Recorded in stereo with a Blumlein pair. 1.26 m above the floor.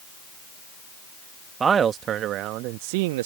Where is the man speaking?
20° right; by 3.3 s 55° right.